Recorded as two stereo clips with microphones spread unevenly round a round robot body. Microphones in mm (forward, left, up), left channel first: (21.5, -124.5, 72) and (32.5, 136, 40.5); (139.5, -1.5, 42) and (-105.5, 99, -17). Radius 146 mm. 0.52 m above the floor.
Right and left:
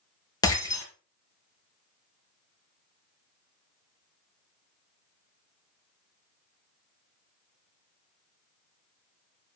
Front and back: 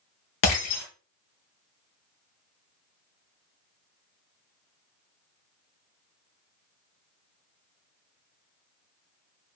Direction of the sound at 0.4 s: 15° right.